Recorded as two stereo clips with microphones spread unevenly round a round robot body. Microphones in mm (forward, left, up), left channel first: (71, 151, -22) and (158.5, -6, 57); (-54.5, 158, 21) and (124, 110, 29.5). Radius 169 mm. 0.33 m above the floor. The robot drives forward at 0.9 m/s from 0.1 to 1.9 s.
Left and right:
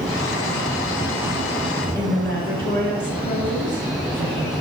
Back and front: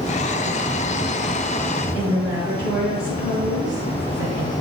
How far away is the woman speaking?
About 5.5 m.